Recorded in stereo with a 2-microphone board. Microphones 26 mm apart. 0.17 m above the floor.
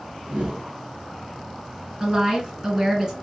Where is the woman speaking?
20° right (ahead or behind), 2.5 m.